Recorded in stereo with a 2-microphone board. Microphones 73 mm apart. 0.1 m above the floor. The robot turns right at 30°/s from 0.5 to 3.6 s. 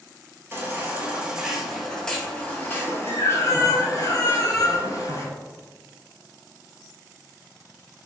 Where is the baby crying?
35° right, 0.6 m; by 5.3 s 55° left, 0.6 m.